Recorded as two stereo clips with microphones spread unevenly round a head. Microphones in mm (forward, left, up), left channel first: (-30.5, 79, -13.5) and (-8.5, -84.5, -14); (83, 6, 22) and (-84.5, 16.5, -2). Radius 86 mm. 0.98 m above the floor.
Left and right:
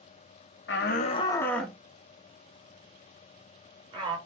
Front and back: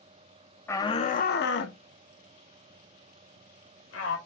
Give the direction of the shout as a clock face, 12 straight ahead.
9 o'clock.